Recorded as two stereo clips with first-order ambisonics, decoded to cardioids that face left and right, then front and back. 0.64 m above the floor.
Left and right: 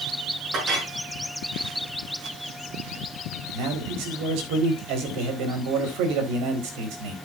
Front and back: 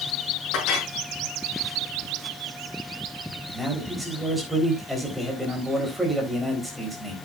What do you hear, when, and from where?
0.5 s a clink: 35° right, 5.5 m
3.5 s a man speaking: 95° right, 4 m